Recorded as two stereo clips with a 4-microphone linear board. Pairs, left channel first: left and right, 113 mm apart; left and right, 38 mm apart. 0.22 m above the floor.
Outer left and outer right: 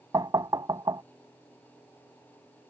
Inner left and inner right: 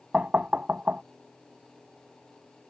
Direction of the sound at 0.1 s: 40° right (ahead or behind).